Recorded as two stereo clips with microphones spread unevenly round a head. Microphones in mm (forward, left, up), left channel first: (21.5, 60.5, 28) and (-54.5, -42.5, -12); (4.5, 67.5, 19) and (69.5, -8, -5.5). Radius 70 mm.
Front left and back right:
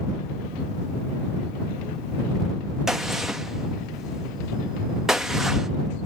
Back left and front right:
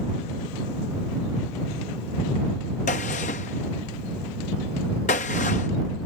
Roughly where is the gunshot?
Behind left.